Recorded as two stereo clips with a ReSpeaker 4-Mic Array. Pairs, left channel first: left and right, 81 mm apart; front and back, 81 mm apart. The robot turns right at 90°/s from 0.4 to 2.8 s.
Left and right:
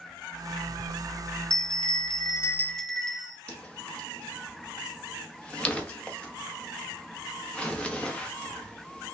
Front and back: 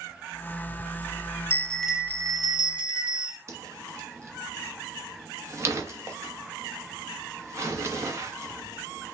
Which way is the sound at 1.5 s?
55° left.